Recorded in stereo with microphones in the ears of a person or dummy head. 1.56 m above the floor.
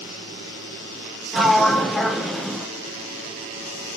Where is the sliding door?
5° right (ahead or behind), 0.8 m.